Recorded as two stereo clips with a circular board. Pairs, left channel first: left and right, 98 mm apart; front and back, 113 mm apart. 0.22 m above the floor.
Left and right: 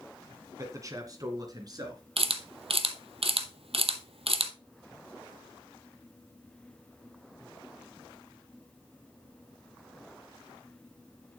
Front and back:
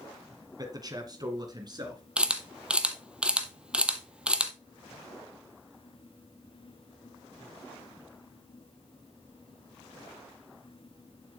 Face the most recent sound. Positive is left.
turn(degrees=-100)